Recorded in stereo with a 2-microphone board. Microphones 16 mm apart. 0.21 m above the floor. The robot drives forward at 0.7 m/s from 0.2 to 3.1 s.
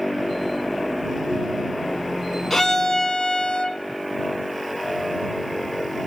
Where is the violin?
30° left (ahead or behind), 0.9 m; by 3.8 s 40° left (ahead or behind), 0.7 m.